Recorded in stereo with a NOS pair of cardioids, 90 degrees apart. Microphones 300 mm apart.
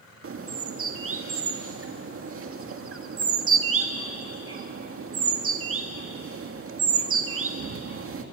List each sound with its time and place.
0.2 s a bird: 45° right, 1.9 m